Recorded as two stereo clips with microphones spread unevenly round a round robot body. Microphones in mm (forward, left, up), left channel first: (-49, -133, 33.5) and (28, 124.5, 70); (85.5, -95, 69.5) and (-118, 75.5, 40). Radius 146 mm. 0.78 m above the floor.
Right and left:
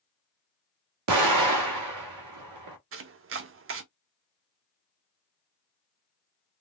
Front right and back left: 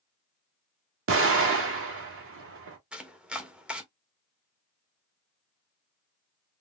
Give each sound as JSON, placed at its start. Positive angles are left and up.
{"t": 1.1, "sound": "an explosion", "azimuth_deg": 95, "distance_m": 1.0}
{"t": 2.9, "sound": "chopping", "azimuth_deg": 65, "distance_m": 0.6}